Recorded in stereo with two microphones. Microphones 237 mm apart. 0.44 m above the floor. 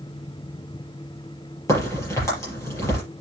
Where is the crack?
10° left (ahead or behind), 7 m.